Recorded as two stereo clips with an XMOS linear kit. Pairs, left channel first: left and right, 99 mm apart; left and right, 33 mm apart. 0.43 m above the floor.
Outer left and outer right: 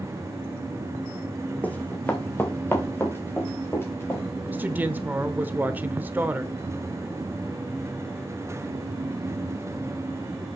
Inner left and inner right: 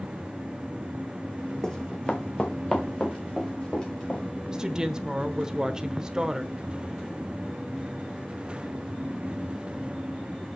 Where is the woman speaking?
20° right (ahead or behind), 1.0 m.